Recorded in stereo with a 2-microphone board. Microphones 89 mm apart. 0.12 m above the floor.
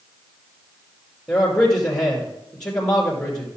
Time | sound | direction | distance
1.3 | a man speaking | 5° left (ahead or behind) | 2.5 m